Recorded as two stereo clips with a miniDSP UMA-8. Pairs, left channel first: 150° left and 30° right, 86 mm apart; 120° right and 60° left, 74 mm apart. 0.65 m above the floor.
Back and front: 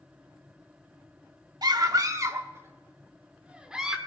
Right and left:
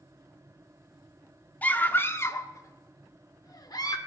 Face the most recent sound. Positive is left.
turn(degrees=-115)